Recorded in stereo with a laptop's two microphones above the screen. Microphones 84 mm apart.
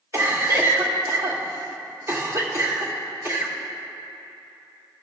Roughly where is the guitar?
I don't hear a guitar.